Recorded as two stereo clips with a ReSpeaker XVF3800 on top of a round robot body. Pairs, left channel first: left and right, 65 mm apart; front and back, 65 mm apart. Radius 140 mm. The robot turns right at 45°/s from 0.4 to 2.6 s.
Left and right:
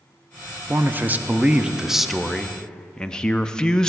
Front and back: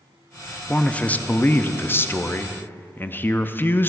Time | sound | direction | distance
0.7 | a man speaking | 65° right | 0.7 m